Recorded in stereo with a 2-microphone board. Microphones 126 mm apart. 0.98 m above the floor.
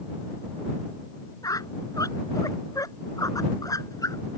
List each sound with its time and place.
1.4 s a squeak: 30° left (ahead or behind)